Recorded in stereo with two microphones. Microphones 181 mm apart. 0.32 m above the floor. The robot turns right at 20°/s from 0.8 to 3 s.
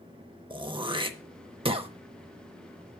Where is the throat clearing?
25° right (ahead or behind), 0.6 m; by 1.9 s 30° right (ahead or behind), 0.6 m.